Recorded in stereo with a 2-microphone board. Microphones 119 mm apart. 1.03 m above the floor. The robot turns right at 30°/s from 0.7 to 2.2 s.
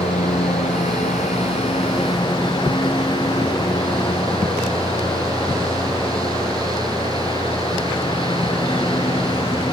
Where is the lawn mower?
95° left; by 9.7 s 140° left.